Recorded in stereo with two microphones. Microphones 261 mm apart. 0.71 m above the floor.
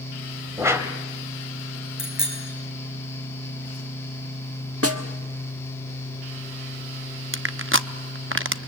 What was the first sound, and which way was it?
A whoosh, 10° right (ahead or behind).